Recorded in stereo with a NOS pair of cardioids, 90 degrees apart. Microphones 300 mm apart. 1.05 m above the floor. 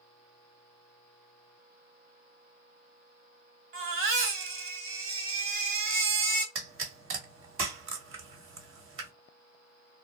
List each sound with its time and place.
3.7 s a baby crying: 45° right, 1.3 m
6.5 s a pop: 45° right, 1.3 m